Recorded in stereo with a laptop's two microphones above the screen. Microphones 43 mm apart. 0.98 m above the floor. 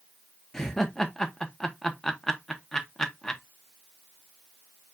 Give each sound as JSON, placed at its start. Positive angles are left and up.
{"t": 0.5, "sound": "laughter", "side_deg": 10, "distance_m": 1.3}